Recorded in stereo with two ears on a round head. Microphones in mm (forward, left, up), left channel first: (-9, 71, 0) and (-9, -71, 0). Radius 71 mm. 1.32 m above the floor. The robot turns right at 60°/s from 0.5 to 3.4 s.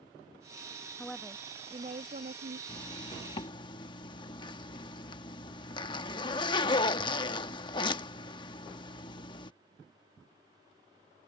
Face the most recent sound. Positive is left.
turn(degrees=105)